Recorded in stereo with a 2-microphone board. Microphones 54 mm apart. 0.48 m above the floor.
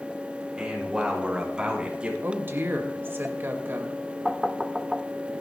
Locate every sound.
0.6 s a man speaking: 15° right (ahead or behind), 6 m; by 2.1 s 20° right (ahead or behind), 4 m
2.2 s a woman speaking: 40° right (ahead or behind), 2.5 m
4.2 s knocking: 5° right (ahead or behind), 0.7 m